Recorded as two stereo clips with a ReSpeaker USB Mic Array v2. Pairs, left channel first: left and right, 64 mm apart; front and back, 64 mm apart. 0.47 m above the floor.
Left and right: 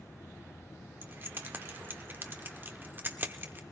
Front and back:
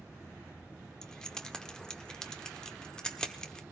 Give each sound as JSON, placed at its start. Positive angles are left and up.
{"t": 1.0, "sound": "keys jangling", "azimuth_deg": -70, "distance_m": 0.9}